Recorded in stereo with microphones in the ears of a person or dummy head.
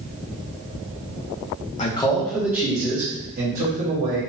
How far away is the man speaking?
About 0.9 m.